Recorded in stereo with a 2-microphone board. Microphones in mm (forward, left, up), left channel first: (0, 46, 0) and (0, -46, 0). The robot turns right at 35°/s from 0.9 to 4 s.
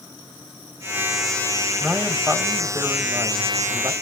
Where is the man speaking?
165° right, 1.2 m; by 3.9 s 90° right, 1.2 m.